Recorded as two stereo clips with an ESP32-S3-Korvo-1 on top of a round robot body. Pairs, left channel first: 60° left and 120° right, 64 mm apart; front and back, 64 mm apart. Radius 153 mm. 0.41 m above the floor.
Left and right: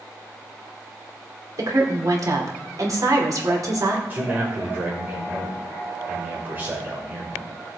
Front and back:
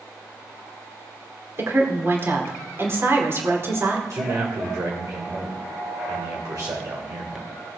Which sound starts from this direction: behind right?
A woman speaking, at 1.6 s.